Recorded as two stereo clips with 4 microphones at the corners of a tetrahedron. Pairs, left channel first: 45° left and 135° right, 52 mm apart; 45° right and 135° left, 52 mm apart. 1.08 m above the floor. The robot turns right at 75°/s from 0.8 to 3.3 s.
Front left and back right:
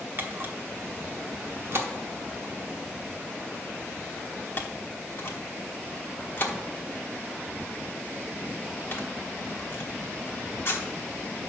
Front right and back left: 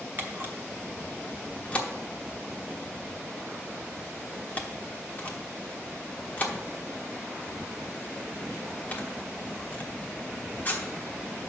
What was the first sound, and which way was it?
A camera shutter, 175° right.